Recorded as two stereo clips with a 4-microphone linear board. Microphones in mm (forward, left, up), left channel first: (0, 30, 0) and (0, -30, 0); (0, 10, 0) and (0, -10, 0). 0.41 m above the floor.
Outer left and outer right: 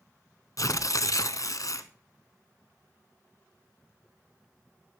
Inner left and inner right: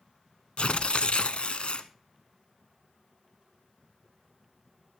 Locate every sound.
0.6 s tearing paper: 75° left (ahead or behind), 0.9 m